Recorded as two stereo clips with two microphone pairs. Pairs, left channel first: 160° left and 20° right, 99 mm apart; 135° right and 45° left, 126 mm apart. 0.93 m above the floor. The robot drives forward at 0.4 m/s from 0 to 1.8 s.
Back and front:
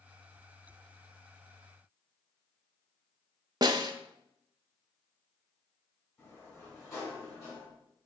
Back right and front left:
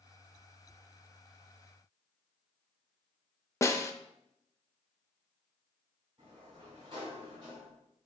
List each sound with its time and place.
3.6 s a snare drum: 70° right, 0.6 m
6.2 s a sliding door: 100° left, 4 m